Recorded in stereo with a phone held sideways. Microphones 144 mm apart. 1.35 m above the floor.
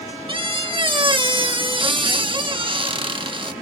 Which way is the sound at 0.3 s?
35° right (ahead or behind).